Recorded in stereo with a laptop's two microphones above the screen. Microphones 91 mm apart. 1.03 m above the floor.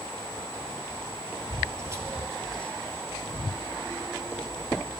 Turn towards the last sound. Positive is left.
turn(degrees=45)  # may be behind; listen again after turning